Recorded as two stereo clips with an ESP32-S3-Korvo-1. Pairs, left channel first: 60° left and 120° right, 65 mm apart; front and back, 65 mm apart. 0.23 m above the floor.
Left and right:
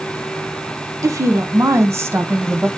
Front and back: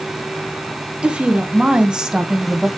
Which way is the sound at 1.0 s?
115° right.